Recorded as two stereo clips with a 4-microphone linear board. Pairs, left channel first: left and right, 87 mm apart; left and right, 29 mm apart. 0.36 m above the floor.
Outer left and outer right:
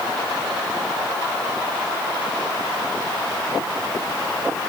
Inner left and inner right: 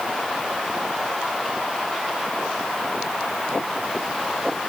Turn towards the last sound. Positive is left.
No sound to turn to.